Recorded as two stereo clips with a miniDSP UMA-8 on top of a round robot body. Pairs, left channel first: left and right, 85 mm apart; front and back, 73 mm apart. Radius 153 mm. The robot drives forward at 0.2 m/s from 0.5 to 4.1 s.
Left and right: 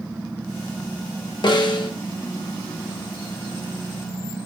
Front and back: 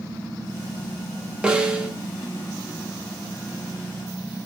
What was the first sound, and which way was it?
A snare drum, 105° left.